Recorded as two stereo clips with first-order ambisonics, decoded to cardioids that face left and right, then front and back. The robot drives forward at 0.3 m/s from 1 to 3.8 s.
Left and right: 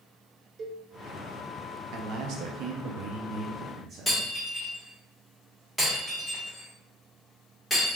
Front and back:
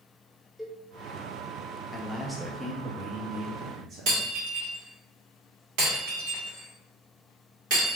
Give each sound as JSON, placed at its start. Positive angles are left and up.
{"t": 0.6, "sound": "a cowbell", "azimuth_deg": -90, "distance_m": 0.7}
{"t": 1.9, "sound": "a man speaking", "azimuth_deg": -75, "distance_m": 0.6}
{"t": 4.1, "sound": "breaking glass", "azimuth_deg": 180, "distance_m": 1.7}